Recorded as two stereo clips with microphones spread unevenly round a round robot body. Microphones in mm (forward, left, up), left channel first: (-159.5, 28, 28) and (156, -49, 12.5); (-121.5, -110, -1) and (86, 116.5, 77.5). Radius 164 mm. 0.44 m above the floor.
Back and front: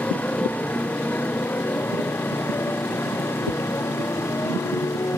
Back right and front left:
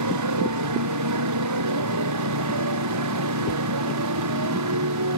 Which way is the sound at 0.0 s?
80° left.